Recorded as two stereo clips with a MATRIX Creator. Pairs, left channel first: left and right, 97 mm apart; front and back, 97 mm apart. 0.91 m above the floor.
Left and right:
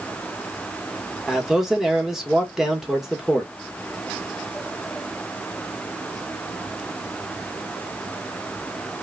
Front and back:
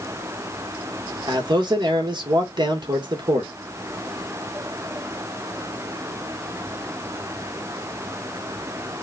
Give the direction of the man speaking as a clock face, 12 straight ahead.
6 o'clock.